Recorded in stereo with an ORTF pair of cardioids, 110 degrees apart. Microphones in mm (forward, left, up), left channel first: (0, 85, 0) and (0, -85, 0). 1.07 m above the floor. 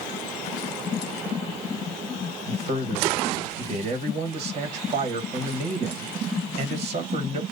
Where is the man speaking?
40° right, 1.3 m.